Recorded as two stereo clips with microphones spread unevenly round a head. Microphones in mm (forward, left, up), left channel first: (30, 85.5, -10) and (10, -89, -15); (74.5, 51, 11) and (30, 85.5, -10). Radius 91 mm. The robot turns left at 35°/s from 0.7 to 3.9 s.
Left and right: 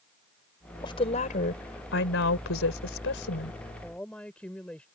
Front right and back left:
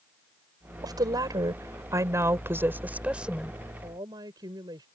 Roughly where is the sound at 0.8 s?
Behind left.